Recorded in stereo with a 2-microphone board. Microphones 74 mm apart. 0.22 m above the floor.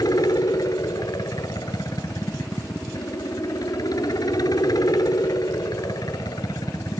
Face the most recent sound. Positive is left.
turn(degrees=55)  # may be behind; listen again after turning